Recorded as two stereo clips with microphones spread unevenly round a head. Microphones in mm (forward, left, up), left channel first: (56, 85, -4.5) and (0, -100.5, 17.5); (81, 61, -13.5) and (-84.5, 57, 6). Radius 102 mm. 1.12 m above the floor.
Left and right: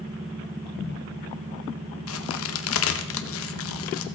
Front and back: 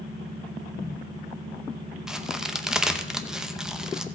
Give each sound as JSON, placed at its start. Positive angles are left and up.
{"t": 2.1, "sound": "a crack", "azimuth_deg": 95, "distance_m": 0.7}